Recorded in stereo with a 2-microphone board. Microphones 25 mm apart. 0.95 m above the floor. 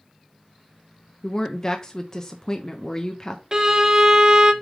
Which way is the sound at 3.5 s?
30° right (ahead or behind).